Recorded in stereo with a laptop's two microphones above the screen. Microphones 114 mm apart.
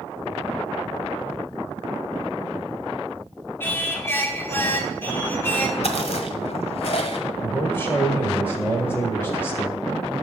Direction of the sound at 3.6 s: 20° left (ahead or behind).